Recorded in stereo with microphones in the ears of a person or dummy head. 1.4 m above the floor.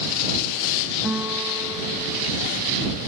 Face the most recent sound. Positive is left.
turn(degrees=-5)  # may be behind; listen again after turning